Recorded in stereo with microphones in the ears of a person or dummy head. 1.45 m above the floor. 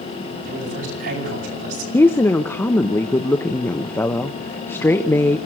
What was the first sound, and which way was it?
A man speaking, 70° right (ahead or behind).